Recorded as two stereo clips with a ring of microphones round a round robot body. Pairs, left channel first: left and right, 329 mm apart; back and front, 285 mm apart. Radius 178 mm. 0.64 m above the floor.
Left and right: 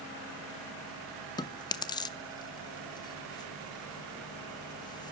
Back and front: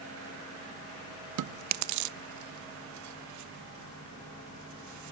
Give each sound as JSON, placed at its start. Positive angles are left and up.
{"t": 1.4, "sound": "chewing", "azimuth_deg": 15, "distance_m": 0.6}